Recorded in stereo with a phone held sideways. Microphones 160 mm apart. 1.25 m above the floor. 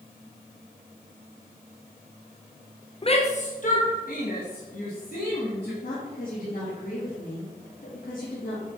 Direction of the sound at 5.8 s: 65° left (ahead or behind).